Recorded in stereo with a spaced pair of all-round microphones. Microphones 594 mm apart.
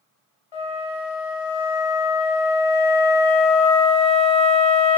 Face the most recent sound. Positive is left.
turn(degrees=50)  # may be behind; listen again after turning